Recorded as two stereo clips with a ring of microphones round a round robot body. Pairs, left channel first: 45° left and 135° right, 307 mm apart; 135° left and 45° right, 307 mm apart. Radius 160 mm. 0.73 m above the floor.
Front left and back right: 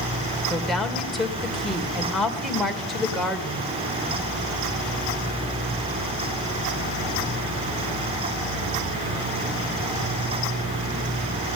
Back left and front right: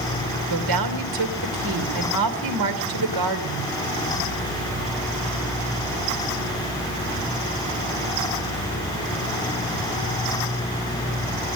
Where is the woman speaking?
45° right, 3 m.